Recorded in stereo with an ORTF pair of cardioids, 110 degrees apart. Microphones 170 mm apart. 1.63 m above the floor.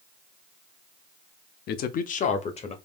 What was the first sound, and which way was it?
A man speaking, 65° left.